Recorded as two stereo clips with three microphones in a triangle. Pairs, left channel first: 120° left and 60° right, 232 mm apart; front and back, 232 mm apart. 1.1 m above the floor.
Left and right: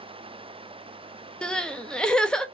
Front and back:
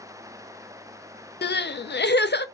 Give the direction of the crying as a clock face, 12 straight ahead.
11 o'clock.